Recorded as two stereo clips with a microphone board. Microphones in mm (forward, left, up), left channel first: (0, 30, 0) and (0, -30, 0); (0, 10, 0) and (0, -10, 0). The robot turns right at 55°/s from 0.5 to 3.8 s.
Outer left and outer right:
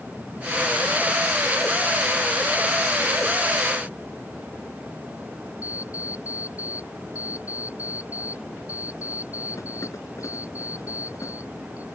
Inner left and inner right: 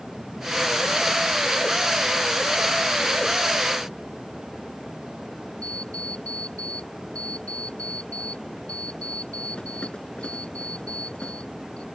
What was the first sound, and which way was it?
An alarm clock, 60° left (ahead or behind).